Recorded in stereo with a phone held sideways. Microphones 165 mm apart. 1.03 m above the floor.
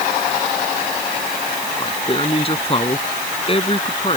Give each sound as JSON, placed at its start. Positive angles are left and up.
{"t": 1.8, "sound": "a man speaking", "side_deg": 35}